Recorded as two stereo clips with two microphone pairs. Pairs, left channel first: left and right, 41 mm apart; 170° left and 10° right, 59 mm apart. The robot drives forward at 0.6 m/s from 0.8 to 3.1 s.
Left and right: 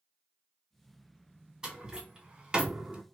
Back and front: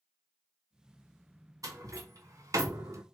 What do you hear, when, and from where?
1.6 s a door slam: 20° right, 1.7 m; by 3.0 s 40° right, 0.9 m